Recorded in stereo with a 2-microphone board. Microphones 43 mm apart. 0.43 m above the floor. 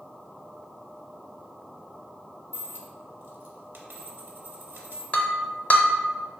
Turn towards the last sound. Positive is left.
turn(degrees=35)  # may be behind; listen again after turning